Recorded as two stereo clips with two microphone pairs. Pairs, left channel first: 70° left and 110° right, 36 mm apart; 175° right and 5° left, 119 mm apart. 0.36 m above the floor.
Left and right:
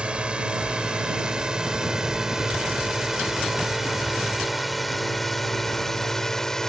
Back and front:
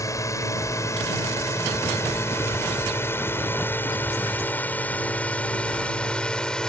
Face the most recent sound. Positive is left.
turn(degrees=115)